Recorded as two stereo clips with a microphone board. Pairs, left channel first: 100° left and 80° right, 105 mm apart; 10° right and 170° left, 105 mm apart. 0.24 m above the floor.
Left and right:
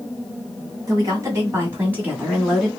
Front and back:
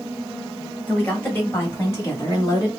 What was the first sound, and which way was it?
A woman speaking, 80° right.